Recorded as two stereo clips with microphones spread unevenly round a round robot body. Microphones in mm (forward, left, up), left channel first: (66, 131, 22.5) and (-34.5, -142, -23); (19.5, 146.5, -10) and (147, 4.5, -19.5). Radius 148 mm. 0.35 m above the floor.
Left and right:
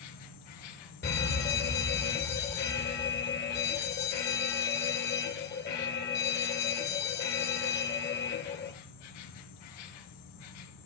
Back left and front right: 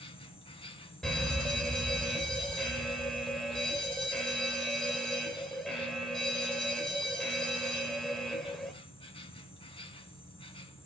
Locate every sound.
0.0 s an insect: 70° left, 2.5 m
1.0 s a fire alarm: 45° left, 2 m